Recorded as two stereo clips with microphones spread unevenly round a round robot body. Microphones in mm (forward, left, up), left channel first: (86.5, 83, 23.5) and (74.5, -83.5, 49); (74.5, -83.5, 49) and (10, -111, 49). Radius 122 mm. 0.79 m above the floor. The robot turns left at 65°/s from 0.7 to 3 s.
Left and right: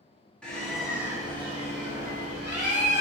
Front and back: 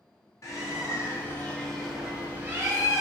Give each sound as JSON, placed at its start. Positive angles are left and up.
{"t": 0.4, "sound": "a bird", "azimuth_deg": 15, "distance_m": 1.2}